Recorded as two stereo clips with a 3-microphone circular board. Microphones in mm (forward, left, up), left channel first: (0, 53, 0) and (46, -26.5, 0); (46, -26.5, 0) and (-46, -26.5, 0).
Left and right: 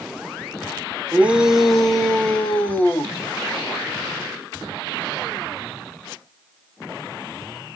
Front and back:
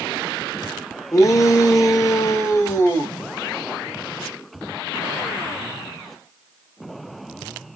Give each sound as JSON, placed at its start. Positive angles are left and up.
{"t": 1.1, "sound": "a shout", "azimuth_deg": 0, "distance_m": 1.1}